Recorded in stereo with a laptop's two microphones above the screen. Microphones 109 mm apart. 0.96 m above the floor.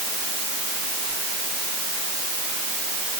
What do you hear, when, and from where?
Only background noise.